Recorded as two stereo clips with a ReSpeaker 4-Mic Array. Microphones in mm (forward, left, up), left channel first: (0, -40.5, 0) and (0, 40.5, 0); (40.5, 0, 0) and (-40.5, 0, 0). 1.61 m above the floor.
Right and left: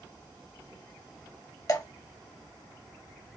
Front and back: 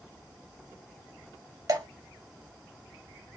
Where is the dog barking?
No dog barking in this recording.